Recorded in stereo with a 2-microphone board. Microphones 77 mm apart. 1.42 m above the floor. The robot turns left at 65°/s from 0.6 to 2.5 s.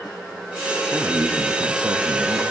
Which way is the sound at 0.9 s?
15° right.